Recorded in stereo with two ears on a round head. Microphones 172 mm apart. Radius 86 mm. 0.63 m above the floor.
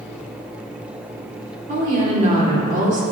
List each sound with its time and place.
1.7 s a woman speaking: 40° right (ahead or behind), 1.8 m